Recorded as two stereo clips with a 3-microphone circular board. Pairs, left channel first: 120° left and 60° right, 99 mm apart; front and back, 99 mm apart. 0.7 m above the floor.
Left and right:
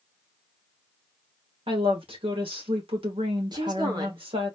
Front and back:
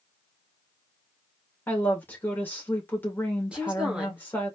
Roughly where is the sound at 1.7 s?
Right.